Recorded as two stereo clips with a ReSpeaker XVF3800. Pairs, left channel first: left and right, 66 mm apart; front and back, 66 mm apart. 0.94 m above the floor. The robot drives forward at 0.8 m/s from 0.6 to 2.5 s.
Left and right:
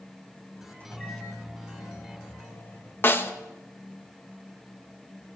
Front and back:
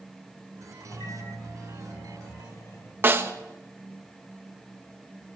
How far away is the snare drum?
About 1.0 m.